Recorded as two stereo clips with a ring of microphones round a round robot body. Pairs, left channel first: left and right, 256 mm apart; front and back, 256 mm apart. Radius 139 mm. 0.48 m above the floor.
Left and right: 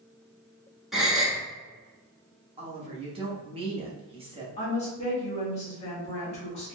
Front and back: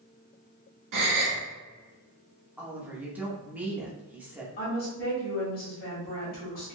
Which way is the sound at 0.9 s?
Straight behind.